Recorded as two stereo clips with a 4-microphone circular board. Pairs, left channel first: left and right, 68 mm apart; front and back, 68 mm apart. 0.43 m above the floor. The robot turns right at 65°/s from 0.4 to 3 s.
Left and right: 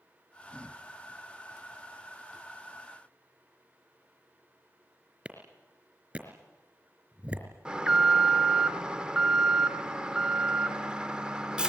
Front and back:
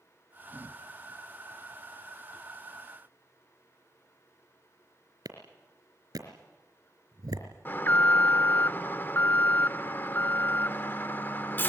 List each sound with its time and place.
5.2 s a clap: 160° right, 4 m
7.7 s an alarm: 25° right, 0.6 m